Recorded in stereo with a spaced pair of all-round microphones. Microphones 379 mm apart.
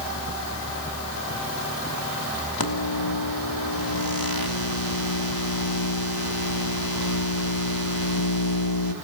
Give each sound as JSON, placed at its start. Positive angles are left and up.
{"t": 2.6, "sound": "a microwave", "side_deg": 70, "distance_m": 2.0}